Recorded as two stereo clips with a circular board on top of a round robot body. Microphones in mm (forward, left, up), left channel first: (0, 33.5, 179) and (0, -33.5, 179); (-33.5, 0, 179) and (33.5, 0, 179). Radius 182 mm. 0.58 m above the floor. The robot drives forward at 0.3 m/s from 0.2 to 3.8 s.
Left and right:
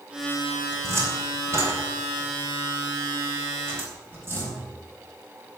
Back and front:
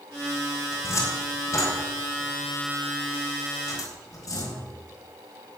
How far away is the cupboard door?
About 3.5 m.